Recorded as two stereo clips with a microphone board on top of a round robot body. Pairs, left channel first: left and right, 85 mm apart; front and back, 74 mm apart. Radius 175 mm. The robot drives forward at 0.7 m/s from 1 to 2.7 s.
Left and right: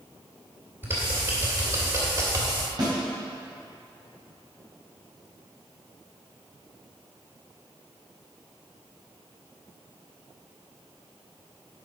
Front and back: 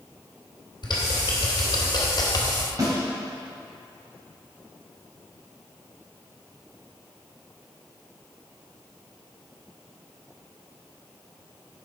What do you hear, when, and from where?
0.8 s typing on a keyboard: 25° right, 3 m; by 2.7 s 40° right, 1.9 m
2.8 s a snare drum: 135° right, 3 m